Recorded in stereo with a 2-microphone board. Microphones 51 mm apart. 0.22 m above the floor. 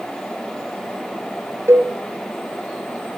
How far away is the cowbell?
About 2.5 m.